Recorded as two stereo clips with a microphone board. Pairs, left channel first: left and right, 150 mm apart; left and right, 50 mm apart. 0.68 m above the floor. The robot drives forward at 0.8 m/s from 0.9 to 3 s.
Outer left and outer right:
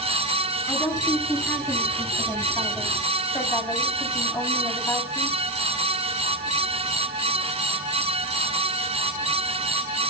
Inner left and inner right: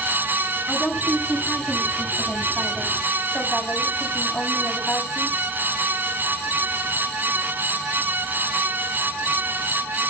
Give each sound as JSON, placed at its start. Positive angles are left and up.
{"t": 0.7, "sound": "a woman speaking", "side_deg": 15, "distance_m": 7.0}